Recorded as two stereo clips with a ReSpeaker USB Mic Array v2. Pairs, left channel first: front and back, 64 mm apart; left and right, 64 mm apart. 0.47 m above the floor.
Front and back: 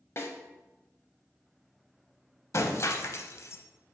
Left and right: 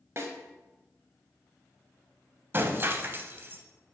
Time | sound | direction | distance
0.2 | a snare drum | 45° right | 1.0 m
2.5 | breaking glass | 40° right | 0.7 m